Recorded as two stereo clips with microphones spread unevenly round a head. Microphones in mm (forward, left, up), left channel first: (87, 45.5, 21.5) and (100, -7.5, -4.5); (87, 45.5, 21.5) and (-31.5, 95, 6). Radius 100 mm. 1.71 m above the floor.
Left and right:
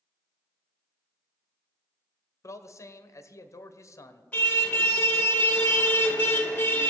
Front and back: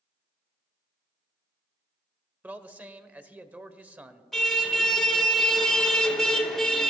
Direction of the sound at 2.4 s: 80° left.